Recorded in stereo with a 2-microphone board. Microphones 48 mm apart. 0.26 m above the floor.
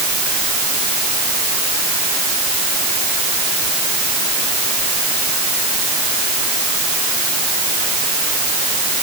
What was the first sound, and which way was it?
Only background noise.